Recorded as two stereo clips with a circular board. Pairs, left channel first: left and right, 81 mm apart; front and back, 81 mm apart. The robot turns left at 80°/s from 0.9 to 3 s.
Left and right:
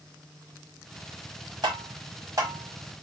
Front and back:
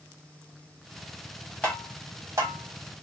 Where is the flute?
No flute in this recording.